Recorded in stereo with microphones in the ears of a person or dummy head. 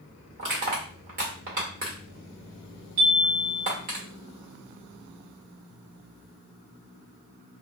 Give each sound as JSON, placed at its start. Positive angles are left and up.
{"t": 0.4, "sound": "crushing", "side_deg": -40, "distance_m": 1.7}
{"t": 3.0, "sound": "a chime", "side_deg": -40, "distance_m": 1.7}